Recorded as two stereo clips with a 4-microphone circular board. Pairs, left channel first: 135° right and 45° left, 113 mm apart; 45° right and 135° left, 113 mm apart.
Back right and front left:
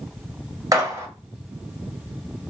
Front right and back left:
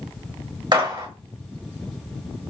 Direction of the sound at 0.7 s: 95° left.